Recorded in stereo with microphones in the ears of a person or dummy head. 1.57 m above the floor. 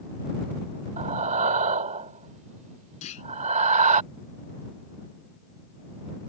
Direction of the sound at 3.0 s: 35° left (ahead or behind).